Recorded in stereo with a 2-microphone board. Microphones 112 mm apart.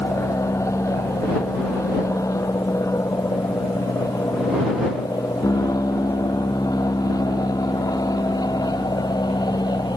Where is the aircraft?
25° left (ahead or behind); by 10.0 s 40° left (ahead or behind).